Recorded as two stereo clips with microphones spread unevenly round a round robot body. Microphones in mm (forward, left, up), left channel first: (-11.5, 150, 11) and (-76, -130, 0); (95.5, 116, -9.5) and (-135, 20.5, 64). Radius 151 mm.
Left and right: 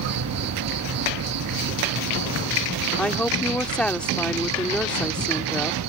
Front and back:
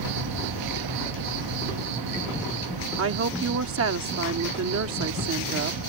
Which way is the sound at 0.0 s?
140° right.